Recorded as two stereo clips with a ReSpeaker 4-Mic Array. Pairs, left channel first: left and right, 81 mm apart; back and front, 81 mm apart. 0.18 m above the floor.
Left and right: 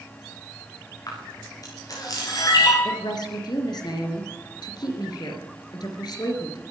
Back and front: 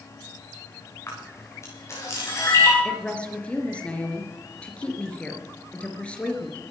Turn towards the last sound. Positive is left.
turn(degrees=105)